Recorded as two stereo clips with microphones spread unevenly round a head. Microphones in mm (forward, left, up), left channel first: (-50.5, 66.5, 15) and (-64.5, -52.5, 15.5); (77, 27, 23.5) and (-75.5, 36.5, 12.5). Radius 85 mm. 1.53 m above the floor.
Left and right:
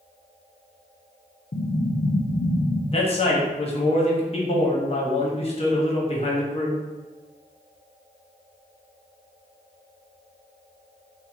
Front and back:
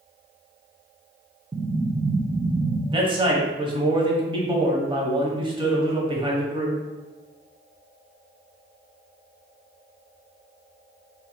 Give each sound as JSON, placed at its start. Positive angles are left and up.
{"t": 1.5, "sound": "an explosion", "azimuth_deg": 105, "distance_m": 0.6}
{"t": 2.9, "sound": "a man speaking", "azimuth_deg": 120, "distance_m": 1.3}